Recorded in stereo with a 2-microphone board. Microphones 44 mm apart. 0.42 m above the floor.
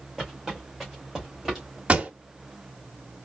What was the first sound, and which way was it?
Footsteps, 10° right (ahead or behind).